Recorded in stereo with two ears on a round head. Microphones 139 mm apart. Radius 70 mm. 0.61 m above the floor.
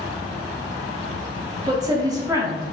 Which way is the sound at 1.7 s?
25° right (ahead or behind).